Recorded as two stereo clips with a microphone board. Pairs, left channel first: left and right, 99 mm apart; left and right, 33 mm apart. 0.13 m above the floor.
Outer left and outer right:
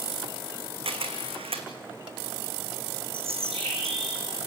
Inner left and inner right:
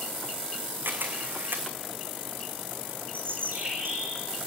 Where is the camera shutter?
70° right (ahead or behind), 3 m.